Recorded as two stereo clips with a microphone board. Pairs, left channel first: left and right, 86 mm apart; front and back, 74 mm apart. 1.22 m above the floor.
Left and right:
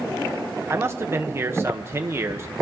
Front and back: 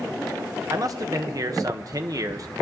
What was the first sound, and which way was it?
A man speaking, 150° right.